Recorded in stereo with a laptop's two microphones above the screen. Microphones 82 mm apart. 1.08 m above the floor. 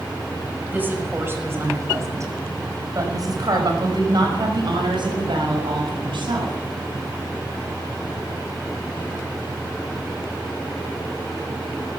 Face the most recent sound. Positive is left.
turn(degrees=-80)